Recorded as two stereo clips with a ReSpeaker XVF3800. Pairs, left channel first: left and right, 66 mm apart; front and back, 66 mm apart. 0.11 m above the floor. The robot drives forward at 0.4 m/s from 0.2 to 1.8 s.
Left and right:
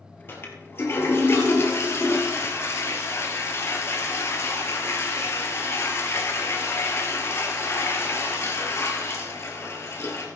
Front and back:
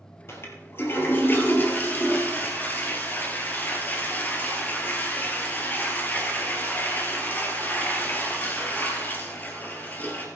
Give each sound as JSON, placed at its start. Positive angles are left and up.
{"t": 0.3, "sound": "a toilet flushing", "azimuth_deg": 40, "distance_m": 2.5}